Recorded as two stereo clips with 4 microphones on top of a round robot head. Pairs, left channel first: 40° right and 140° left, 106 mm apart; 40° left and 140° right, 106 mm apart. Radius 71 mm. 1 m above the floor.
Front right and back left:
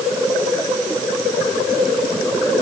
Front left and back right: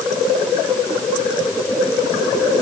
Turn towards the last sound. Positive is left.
No sound to turn to.